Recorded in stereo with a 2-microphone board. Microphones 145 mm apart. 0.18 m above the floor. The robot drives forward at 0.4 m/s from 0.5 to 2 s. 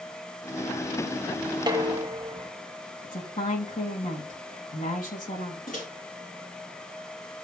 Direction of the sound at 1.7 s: 30° right (ahead or behind).